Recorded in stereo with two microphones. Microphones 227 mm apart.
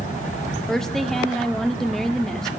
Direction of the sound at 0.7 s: Centre (ahead or behind).